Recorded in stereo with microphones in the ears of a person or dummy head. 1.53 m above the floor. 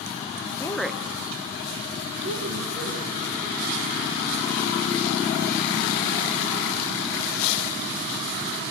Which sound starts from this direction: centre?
A woman speaking, at 0.6 s.